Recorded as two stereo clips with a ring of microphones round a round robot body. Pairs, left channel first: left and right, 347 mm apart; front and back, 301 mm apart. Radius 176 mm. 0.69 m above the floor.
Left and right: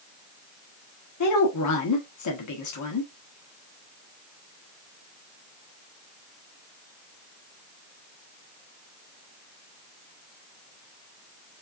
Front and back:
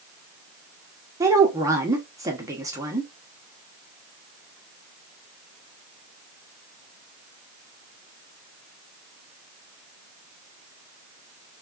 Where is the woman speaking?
105° left, 1.2 m.